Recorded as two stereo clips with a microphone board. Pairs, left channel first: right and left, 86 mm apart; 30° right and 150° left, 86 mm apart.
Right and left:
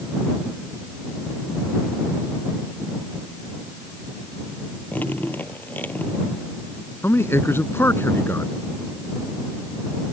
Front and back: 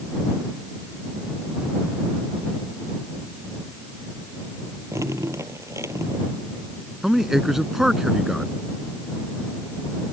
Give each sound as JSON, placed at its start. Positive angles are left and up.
{"t": 4.9, "sound": "dripping", "azimuth_deg": -160}
{"t": 7.0, "sound": "a man speaking", "azimuth_deg": -130}